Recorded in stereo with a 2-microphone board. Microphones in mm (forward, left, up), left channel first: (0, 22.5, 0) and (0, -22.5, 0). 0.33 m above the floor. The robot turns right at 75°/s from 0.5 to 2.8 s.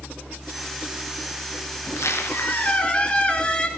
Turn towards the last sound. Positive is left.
turn(degrees=155)